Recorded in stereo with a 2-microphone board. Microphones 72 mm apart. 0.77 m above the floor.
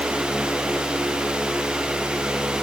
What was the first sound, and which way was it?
Only background noise.